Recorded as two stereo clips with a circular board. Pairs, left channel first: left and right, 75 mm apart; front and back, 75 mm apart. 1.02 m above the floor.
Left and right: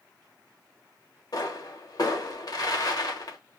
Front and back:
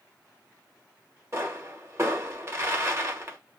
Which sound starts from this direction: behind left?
A pop, at 1.3 s.